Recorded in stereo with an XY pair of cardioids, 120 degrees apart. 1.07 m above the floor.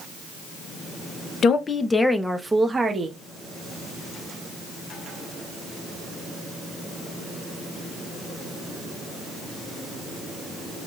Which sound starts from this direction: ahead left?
A woman speaking, at 1.4 s.